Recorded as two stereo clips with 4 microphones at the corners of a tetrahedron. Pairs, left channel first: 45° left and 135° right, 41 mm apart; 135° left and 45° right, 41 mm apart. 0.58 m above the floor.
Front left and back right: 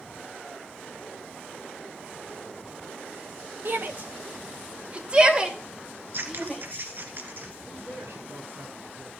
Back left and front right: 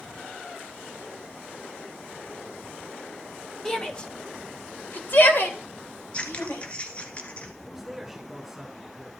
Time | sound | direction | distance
3.6 | a shout | 155° right | 2 m
6.1 | scissors | 165° right | 1.8 m
7.7 | a man speaking | 135° right | 6 m